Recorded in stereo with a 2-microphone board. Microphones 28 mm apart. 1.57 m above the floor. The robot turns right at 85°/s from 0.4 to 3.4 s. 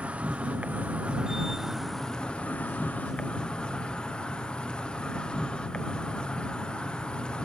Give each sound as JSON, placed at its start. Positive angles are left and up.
{"t": 0.0, "sound": "an insect", "azimuth_deg": -120}